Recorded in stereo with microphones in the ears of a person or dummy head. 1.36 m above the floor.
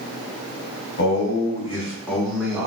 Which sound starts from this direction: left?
A man speaking, at 1.0 s.